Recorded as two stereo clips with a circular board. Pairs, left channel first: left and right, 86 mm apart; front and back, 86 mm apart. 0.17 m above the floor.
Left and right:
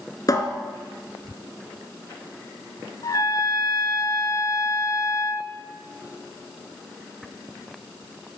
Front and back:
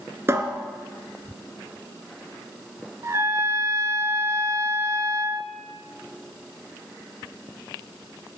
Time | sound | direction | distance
0.3 | a cupboard door | 130° left | 1.4 m
3.0 | a trumpet | 130° left | 0.5 m